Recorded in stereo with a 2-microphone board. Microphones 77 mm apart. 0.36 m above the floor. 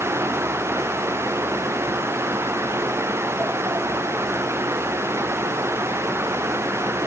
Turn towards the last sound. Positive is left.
No sound to turn to.